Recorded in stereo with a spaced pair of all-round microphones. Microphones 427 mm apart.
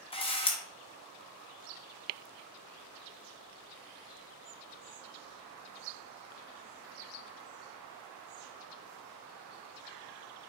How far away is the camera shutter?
About 0.7 m.